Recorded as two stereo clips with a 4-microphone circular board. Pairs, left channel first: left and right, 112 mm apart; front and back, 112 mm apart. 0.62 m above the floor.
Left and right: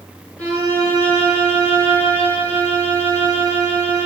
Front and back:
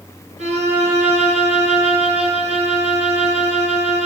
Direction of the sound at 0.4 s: 170° left.